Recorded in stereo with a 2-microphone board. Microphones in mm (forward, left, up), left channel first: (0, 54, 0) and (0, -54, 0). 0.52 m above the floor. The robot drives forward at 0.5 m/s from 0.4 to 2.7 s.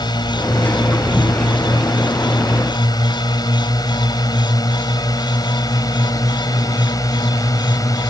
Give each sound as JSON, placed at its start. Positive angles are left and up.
{"t": 0.0, "sound": "a drone", "side_deg": 45}